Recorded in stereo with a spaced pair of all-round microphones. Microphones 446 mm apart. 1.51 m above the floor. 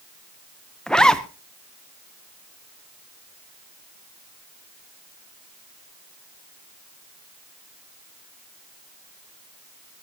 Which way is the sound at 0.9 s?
Centre (ahead or behind).